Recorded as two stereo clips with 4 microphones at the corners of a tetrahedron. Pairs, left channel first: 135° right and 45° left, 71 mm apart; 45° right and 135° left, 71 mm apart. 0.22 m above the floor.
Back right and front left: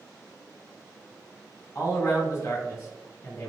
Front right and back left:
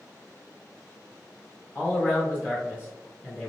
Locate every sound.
1.8 s a man speaking: 90° right, 2.0 m